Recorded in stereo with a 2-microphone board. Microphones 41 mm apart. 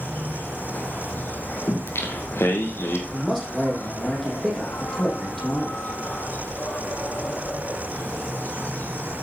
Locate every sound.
0.0 s an insect: 50° left (ahead or behind), 1.5 m
1.7 s singing: 80° left, 2.5 m
3.1 s a man speaking: 5° left (ahead or behind), 7 m